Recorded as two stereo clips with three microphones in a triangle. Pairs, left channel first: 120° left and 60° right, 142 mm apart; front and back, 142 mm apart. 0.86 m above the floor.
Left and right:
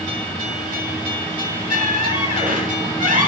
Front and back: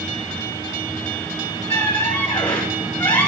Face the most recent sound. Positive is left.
turn(degrees=-75)